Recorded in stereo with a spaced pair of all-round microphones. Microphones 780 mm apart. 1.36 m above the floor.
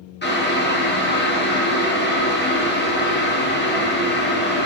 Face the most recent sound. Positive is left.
turn(degrees=15)  # may be behind; listen again after turning